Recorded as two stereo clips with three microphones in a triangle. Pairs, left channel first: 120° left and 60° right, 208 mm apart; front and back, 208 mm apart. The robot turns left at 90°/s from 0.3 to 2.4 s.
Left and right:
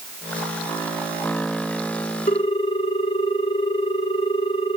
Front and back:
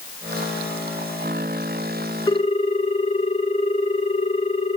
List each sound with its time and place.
2.3 s a ringtone: 70° left, 1.0 m; by 4.8 s 60° left, 1.0 m